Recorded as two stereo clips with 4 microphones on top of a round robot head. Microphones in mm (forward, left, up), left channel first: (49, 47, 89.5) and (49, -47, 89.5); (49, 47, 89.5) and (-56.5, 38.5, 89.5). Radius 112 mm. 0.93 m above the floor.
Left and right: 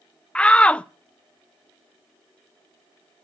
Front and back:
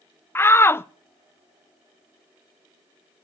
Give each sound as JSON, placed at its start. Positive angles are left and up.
{"t": 0.3, "sound": "a shout", "azimuth_deg": 30, "distance_m": 0.5}